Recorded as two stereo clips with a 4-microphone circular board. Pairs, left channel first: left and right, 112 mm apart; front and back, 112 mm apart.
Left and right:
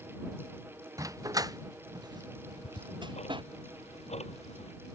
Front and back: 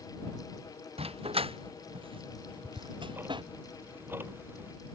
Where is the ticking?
110° left.